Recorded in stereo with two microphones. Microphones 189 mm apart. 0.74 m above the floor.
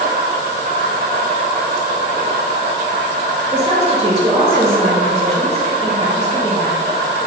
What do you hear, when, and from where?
0.0 s an insect: 50° right (ahead or behind), 1.9 m
3.5 s a woman speaking: 20° right (ahead or behind), 0.7 m